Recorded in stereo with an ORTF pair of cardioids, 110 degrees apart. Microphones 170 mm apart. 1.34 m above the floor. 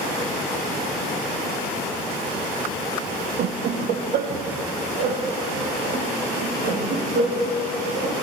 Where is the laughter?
65° right, 0.9 m; by 8.2 s 75° right, 3.5 m.